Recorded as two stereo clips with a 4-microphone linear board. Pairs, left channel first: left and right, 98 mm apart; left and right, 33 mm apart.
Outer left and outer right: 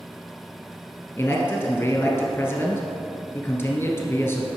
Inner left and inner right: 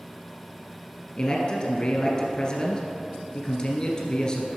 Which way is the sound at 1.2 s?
25° left (ahead or behind).